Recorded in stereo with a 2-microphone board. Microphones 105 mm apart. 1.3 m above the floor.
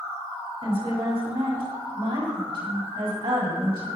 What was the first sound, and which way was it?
A woman speaking, 60° right (ahead or behind).